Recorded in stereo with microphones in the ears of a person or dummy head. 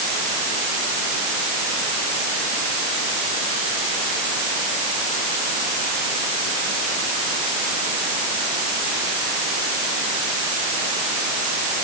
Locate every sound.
Only background noise.